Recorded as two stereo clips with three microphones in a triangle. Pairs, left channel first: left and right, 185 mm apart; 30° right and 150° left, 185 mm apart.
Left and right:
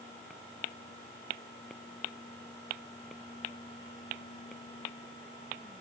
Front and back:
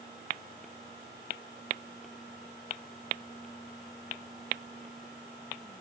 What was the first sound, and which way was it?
Only background noise.